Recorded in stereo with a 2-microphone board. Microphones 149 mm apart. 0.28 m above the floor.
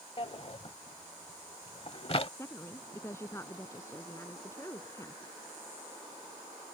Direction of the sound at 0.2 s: 40° left (ahead or behind).